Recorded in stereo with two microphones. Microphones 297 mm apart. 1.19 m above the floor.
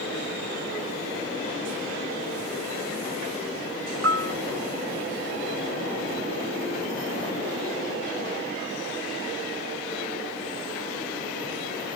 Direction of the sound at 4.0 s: 50° right (ahead or behind).